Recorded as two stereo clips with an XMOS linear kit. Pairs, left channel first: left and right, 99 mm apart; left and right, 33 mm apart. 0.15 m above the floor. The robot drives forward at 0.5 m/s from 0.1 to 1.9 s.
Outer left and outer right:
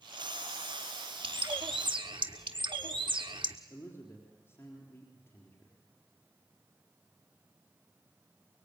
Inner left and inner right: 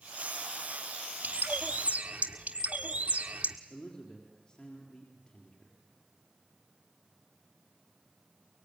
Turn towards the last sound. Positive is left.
turn(degrees=25)  # may be behind; listen again after turning